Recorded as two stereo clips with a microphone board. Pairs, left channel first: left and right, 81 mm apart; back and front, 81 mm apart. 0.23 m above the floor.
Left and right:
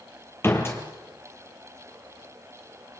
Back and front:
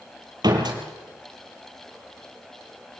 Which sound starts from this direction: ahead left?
A door slam, at 0.4 s.